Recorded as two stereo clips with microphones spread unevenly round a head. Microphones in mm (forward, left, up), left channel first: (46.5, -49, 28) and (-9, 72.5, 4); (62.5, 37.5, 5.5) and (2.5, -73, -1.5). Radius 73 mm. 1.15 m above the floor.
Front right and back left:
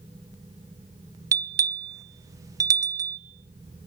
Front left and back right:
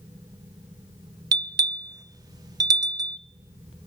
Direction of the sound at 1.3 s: 175° right.